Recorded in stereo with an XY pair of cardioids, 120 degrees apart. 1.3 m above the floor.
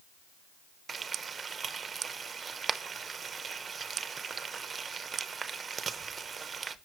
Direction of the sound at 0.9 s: 30° right.